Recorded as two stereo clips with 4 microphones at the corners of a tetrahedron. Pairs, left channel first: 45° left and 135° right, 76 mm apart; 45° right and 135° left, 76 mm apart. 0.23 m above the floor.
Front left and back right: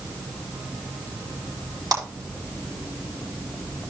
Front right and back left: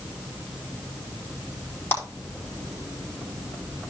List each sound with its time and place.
1.9 s a clap: 105° right, 4 m